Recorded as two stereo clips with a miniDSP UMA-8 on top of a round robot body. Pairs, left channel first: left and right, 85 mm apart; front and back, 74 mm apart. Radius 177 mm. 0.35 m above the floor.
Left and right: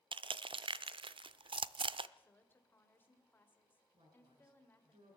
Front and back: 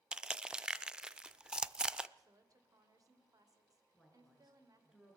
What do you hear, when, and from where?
0.1 s crushing: 100° right, 0.5 m
2.2 s a woman speaking: 155° left, 2.5 m
3.9 s a woman speaking: 95° right, 7 m